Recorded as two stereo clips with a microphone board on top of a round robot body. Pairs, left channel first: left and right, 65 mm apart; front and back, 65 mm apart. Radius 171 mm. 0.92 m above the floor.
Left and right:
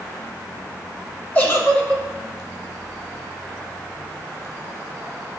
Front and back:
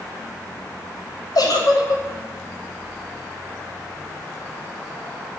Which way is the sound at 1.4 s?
30° left.